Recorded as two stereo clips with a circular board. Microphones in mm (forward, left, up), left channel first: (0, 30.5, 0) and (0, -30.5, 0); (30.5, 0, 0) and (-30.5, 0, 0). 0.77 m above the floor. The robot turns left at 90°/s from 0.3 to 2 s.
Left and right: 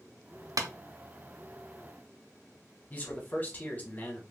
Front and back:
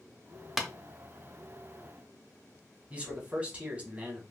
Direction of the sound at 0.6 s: 95° right.